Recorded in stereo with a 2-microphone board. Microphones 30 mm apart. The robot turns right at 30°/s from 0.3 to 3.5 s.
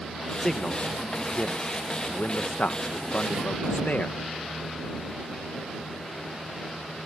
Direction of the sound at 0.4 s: 20° left (ahead or behind).